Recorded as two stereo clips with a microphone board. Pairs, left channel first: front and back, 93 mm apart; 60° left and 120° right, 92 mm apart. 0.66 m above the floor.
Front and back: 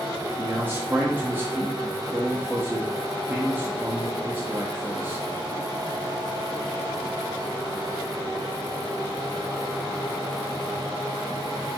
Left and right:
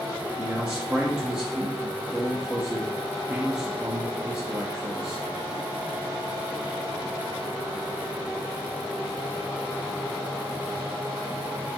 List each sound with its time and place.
0.4 s a man speaking: 170° left, 0.8 m